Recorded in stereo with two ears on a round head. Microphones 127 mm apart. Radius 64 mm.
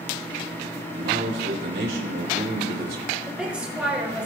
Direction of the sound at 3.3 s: 5° right (ahead or behind).